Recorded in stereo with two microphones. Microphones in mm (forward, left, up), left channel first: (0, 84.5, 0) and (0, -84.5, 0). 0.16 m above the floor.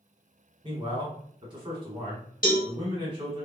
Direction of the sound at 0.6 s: 30° right (ahead or behind).